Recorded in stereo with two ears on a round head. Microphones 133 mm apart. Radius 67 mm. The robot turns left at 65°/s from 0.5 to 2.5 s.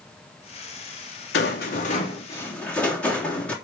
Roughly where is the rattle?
Left.